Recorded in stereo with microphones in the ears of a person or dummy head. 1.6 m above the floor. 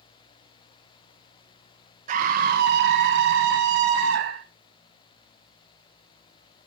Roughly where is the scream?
Right.